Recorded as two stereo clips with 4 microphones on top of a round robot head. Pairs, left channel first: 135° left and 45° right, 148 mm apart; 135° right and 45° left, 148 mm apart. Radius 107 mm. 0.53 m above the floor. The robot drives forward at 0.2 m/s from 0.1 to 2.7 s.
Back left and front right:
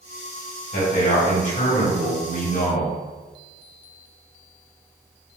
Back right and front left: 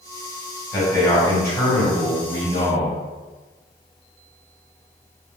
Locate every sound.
0.7 s a man speaking: 155° left, 1.9 m; by 3.0 s 160° left, 2.5 m